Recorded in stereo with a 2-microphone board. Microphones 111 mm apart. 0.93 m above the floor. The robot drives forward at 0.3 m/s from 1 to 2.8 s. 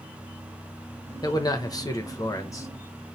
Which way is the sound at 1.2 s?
35° left (ahead or behind).